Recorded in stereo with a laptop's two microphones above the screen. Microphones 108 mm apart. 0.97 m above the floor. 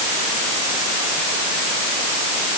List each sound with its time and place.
Only background noise.